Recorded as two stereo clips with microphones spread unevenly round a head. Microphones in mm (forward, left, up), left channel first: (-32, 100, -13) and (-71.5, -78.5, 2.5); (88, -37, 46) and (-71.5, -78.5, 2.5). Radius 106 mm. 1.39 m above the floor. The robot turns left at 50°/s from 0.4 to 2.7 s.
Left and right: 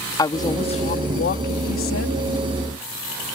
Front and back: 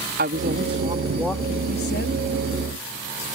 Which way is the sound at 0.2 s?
145° left.